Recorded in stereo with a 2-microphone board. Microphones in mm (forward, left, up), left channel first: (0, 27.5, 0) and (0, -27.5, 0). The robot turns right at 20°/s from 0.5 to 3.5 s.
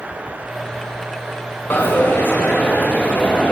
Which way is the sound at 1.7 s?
90° left.